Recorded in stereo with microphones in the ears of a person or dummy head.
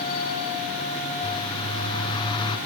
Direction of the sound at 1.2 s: 25° left (ahead or behind).